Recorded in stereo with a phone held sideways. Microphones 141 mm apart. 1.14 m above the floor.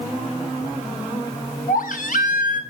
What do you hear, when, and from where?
1.7 s a baby crying: 75° left (ahead or behind), 1.8 m